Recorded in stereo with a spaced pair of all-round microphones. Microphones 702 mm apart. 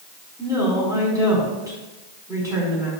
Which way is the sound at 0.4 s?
5° right (ahead or behind).